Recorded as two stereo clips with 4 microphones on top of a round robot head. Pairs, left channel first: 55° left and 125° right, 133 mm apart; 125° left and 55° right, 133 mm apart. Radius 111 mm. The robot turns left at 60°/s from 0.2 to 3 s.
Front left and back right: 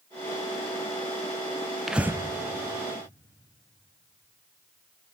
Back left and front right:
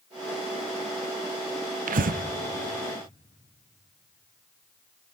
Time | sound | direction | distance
1.9 | breathing | 35° right | 0.6 m